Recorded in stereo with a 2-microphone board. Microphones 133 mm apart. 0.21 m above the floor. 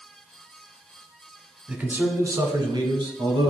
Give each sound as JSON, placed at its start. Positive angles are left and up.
{"t": 1.7, "sound": "a man speaking", "side_deg": -10, "distance_m": 1.0}